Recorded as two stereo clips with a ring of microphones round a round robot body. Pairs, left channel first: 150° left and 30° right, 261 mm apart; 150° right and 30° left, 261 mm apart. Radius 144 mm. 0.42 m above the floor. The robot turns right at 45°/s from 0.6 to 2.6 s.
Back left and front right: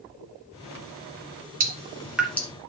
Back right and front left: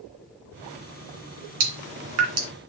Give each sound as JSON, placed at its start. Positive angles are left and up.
{"t": 1.6, "sound": "dripping", "azimuth_deg": 30, "distance_m": 2.5}